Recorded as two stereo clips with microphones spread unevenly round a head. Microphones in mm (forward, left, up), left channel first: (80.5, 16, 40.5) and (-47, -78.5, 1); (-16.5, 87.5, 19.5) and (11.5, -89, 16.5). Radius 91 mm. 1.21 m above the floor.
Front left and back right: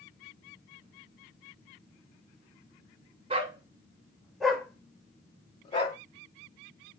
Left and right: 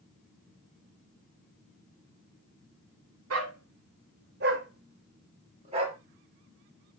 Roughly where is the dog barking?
Right.